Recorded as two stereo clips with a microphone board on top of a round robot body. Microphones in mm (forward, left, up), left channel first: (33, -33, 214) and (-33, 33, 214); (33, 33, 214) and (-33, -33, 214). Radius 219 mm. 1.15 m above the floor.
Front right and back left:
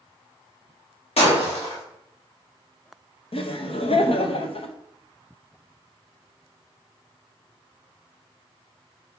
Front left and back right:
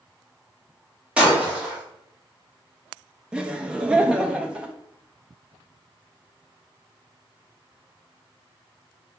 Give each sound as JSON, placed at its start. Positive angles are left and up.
{"t": 1.2, "sound": "breaking glass", "azimuth_deg": -55, "distance_m": 2.5}
{"t": 3.3, "sound": "laughter", "azimuth_deg": -55, "distance_m": 1.2}